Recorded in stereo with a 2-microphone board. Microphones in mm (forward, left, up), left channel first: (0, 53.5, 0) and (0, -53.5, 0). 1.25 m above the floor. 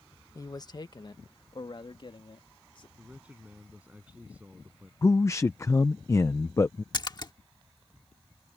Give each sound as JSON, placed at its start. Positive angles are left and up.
{"t": 0.3, "sound": "a man speaking", "side_deg": 30}
{"t": 3.0, "sound": "a man speaking", "side_deg": -10}
{"t": 5.0, "sound": "a man speaking", "side_deg": 25}
{"t": 6.9, "sound": "a splash", "side_deg": 40}